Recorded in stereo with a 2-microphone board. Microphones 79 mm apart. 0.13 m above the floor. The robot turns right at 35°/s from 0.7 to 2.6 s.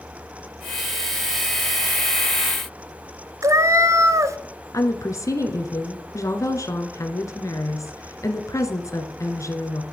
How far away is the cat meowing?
About 0.5 m.